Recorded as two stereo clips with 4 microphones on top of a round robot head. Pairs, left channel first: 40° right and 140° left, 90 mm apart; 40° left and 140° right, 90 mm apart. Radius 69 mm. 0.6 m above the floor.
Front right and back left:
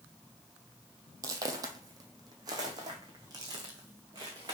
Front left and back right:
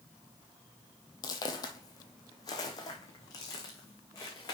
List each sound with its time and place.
1.2 s footsteps: 90° left, 0.9 m